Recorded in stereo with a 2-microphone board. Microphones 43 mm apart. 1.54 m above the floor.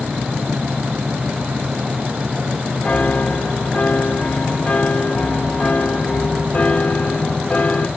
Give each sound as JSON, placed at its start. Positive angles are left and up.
{"t": 2.8, "sound": "a piano", "side_deg": 20, "distance_m": 1.0}